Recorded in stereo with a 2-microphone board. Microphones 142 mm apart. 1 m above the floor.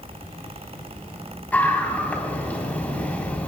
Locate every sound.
1.5 s a scream: 10° left (ahead or behind), 4.5 m